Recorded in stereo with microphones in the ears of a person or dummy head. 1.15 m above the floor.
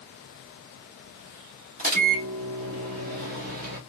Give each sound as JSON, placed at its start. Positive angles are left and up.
{"t": 1.8, "sound": "a microwave", "side_deg": -45, "distance_m": 1.6}